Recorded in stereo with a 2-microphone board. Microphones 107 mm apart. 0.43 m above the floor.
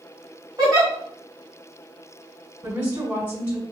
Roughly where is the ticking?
I don't hear ticking.